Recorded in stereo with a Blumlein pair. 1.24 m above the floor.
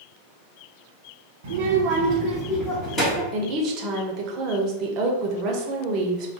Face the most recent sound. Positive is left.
turn(degrees=-40)